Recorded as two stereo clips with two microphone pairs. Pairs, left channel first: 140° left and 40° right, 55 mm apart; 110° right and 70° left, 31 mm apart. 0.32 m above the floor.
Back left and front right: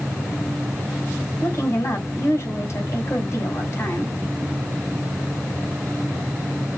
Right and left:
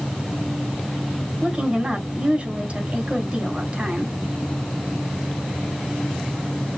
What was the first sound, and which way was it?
A woman speaking, 110° left.